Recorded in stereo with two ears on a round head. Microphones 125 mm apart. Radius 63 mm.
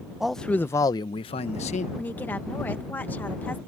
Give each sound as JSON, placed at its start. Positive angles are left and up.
{"t": 0.2, "sound": "a man speaking", "side_deg": -5}
{"t": 2.0, "sound": "a woman speaking", "side_deg": 15}